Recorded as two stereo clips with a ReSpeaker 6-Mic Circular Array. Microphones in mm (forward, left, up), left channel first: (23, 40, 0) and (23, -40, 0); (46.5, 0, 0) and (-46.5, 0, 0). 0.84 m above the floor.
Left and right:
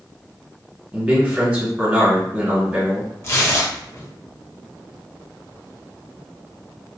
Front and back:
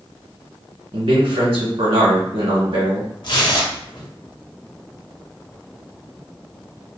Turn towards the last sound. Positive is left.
turn(degrees=35)